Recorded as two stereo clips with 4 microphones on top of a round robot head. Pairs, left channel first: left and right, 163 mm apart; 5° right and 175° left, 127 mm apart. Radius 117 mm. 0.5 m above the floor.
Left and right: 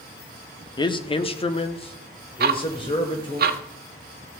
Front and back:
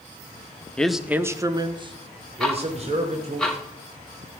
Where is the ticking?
90° right, 1.1 m.